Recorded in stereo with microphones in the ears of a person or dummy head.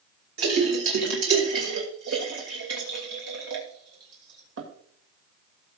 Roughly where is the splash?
Right.